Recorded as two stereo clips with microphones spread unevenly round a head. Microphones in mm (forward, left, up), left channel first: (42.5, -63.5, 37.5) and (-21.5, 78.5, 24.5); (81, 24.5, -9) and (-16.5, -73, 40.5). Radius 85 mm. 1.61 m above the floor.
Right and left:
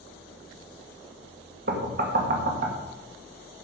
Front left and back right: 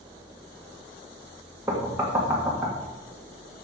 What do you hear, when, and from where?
1.7 s knocking: 150° left, 1.9 m